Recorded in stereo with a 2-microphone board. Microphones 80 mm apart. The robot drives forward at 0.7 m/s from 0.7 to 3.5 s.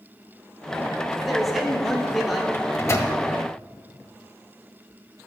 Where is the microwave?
30° left (ahead or behind), 1.4 m; by 3.1 s 40° left (ahead or behind), 1.1 m.